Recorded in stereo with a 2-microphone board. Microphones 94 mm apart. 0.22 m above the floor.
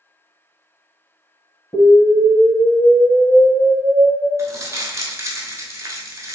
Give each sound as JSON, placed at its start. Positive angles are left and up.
{"t": 1.7, "sound": "an explosion", "side_deg": 25, "distance_m": 1.5}
{"t": 4.4, "sound": "crumpling", "side_deg": -35, "distance_m": 0.7}